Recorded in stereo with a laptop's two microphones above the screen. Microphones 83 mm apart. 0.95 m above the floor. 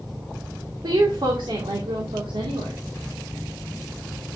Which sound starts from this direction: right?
A woman speaking, at 0.8 s.